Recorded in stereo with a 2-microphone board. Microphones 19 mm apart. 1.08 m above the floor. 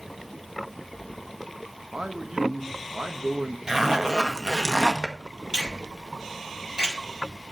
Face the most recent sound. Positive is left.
turn(degrees=-45)  # may be behind; listen again after turning